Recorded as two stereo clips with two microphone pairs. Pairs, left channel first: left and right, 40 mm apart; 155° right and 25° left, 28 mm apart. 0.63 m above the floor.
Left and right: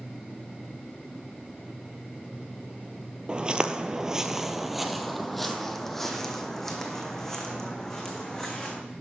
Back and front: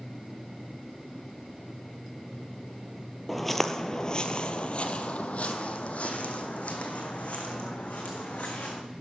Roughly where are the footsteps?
Ahead right.